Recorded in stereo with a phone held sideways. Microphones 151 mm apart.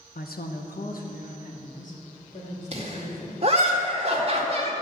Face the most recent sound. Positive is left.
turn(degrees=-40)  # may be behind; listen again after turning